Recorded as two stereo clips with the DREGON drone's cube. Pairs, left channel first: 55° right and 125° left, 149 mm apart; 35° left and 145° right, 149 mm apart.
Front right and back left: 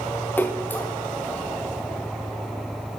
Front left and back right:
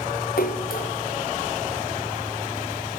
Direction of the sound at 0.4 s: 20° left.